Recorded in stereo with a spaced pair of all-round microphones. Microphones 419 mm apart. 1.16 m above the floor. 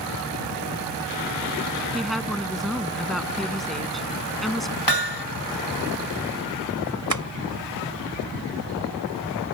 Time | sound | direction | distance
1.9 | a woman speaking | centre (ahead or behind) | ?
4.9 | hammering | 70° left (ahead or behind) | ?
7.1 | tapping | 45° right (ahead or behind) | ?